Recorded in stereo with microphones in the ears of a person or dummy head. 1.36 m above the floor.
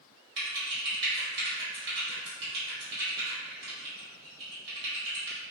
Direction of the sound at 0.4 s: 60° right (ahead or behind).